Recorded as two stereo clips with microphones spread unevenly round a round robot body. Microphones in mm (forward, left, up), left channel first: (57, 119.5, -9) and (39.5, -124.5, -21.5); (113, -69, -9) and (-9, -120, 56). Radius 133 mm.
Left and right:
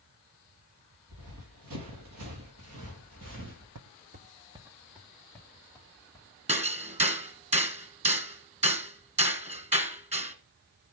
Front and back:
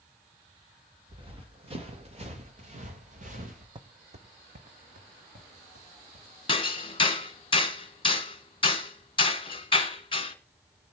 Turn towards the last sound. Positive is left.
turn(degrees=-30)